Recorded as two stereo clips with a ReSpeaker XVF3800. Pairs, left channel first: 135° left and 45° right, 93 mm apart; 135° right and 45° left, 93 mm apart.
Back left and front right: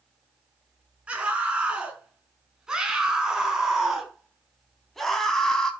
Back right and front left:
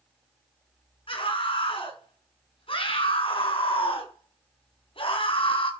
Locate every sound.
1.1 s a scream: 120° right, 6.5 m; by 5.7 s 140° right, 4 m